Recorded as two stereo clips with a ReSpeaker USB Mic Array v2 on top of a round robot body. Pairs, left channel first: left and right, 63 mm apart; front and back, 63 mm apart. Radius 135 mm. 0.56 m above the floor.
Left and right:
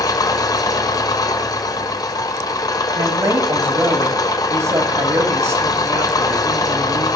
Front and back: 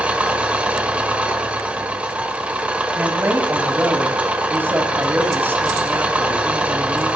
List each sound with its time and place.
0.0 s an engine running: 110° left, 1.4 m
3.0 s a woman speaking: 120° right, 5 m